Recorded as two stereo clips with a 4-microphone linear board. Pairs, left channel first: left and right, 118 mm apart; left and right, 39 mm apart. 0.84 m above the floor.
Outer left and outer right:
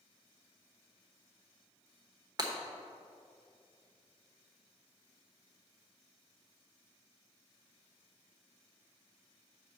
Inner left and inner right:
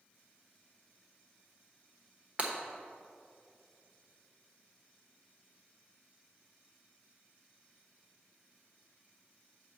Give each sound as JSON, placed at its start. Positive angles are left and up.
{"t": 2.4, "sound": "breaking glass", "side_deg": -35, "distance_m": 1.1}